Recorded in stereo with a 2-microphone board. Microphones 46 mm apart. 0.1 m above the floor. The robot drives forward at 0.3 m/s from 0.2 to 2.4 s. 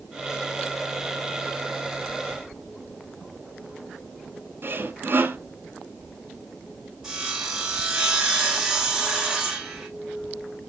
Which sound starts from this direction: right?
Sawing, at 4.6 s.